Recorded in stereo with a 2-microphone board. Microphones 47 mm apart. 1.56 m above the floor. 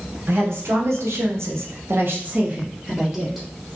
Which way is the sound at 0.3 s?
70° right (ahead or behind).